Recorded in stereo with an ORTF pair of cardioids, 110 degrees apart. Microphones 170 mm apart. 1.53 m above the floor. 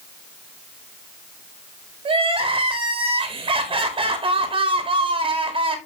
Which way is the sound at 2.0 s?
30° right.